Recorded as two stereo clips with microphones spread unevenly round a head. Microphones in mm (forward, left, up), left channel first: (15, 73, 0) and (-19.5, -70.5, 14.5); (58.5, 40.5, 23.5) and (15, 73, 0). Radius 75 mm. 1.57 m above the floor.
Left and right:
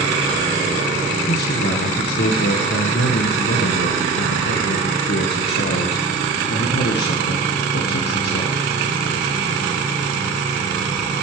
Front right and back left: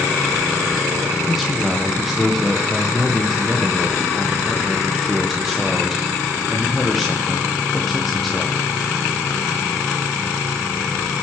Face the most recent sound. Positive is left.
turn(degrees=50)